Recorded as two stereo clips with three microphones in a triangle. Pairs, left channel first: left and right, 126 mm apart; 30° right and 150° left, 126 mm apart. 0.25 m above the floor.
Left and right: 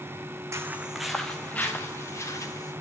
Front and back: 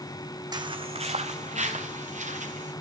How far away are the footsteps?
About 0.9 m.